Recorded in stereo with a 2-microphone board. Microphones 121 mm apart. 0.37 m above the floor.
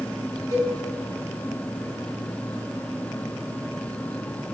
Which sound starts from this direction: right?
A cowbell, at 0.5 s.